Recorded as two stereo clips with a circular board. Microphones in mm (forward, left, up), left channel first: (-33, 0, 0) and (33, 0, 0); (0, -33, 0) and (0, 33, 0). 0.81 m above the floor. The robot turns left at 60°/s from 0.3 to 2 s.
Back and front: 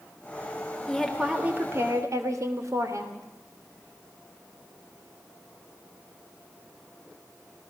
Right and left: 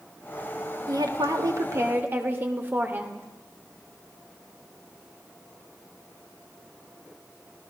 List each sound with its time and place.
0.9 s a woman speaking: 100° left, 3 m; by 3.3 s 35° left, 3 m